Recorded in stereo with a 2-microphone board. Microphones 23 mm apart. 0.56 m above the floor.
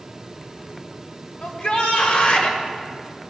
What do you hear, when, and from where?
1.4 s a shout: 65° left (ahead or behind), 2.5 m